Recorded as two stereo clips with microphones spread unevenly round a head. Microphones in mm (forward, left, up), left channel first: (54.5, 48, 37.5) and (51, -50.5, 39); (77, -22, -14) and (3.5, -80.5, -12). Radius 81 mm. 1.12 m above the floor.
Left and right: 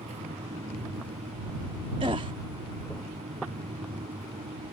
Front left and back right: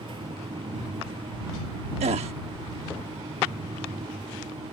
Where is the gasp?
150° right.